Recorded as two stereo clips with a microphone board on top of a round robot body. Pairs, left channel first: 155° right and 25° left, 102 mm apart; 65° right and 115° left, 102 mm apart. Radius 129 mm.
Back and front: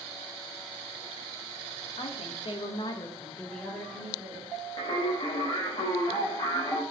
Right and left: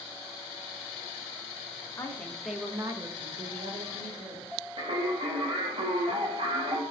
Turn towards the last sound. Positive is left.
turn(degrees=150)